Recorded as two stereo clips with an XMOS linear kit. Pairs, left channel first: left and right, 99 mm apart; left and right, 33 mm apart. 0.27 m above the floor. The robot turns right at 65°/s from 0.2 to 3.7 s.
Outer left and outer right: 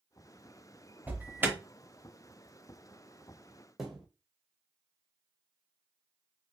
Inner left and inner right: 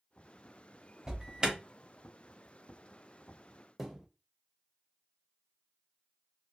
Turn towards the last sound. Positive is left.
turn(degrees=-5)  # may be behind; listen again after turning